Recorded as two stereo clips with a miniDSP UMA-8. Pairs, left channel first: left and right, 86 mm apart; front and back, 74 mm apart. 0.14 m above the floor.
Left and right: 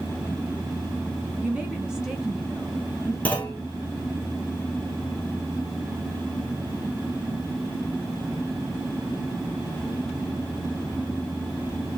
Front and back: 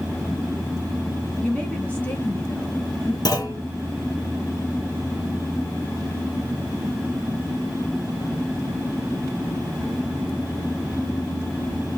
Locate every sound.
1.4 s a woman speaking: 50° right, 1.5 m; by 3.1 s 10° left, 1.8 m
3.2 s a clunk: 20° left, 1.4 m